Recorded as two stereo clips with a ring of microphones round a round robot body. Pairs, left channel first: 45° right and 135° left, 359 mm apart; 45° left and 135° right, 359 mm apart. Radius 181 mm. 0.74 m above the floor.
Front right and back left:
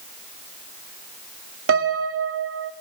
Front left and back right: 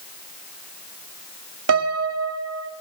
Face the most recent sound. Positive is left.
turn(degrees=-175)